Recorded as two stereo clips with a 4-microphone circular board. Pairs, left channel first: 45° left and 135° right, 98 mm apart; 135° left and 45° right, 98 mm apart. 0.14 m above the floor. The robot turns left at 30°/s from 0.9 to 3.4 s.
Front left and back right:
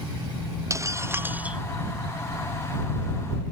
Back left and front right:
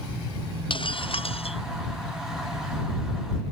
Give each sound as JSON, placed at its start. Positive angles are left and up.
{"t": 0.7, "sound": "breaking glass", "azimuth_deg": 165}